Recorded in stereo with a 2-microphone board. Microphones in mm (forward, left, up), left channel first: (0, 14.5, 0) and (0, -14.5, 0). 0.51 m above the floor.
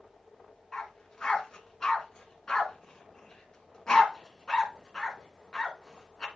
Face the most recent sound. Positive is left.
turn(degrees=20)  # may be behind; listen again after turning